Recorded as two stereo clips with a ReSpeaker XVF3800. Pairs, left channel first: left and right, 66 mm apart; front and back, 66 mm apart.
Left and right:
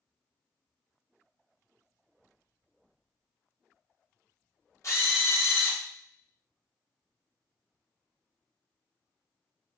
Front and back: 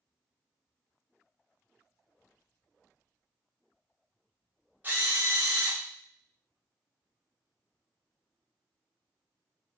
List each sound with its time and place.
4.8 s a drill: 125° left, 0.9 m